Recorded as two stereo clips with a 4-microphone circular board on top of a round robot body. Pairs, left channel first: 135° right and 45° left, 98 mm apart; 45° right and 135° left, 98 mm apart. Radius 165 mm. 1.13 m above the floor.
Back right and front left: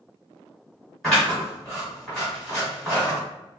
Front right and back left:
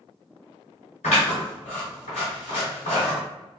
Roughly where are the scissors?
Ahead right.